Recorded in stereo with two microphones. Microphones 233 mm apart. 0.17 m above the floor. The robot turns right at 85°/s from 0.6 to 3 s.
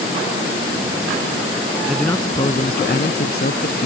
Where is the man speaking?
5° right; by 3.9 s 90° left.